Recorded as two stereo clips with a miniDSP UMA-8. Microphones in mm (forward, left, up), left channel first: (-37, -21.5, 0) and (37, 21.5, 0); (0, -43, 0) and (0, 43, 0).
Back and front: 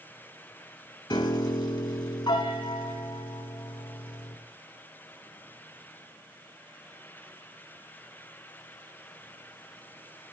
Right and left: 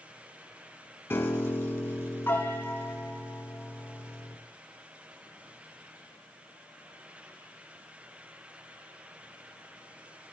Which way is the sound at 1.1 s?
150° right.